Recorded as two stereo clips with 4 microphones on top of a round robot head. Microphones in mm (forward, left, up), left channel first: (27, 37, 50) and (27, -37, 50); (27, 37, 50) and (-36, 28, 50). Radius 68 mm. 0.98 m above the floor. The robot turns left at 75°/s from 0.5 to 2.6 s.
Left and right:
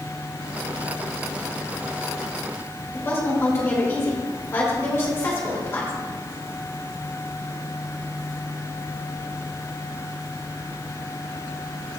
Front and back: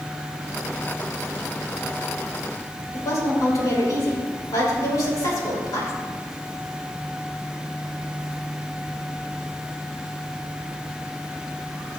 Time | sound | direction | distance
2.9 | a woman speaking | 35° left | 3.5 m